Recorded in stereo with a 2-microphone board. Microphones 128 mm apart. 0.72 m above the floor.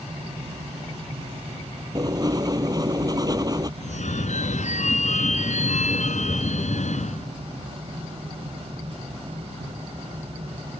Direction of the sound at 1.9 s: 30° right (ahead or behind).